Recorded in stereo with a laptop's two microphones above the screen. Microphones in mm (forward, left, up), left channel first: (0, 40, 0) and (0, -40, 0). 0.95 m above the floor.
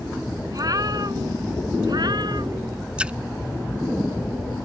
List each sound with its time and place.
0.5 s a cat meowing: 50° right (ahead or behind); by 2.8 s 65° right (ahead or behind)
3.0 s a splash: 15° right (ahead or behind)